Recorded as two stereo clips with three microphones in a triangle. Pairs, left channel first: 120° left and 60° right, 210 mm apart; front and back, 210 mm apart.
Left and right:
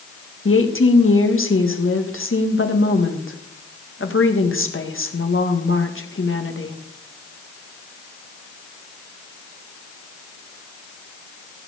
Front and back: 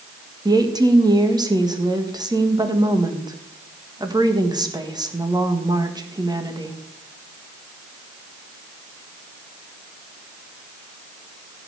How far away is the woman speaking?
About 1.7 m.